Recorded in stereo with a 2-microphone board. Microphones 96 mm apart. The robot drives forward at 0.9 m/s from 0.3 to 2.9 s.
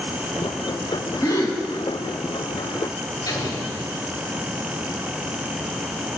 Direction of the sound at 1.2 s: 45° left (ahead or behind).